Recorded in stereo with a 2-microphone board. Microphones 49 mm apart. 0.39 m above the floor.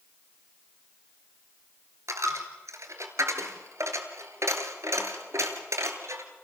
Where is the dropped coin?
80° right, 2.5 m.